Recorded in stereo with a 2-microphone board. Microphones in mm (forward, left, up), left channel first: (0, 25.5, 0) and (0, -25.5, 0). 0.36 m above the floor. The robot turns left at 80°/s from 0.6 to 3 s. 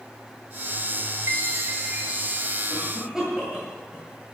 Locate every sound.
1.3 s a chime: 85° right, 5.5 m; by 2.6 s 165° left, 5.5 m
2.7 s a cough: 35° right (ahead or behind), 8.5 m; by 4.3 s 10° right (ahead or behind), 8.5 m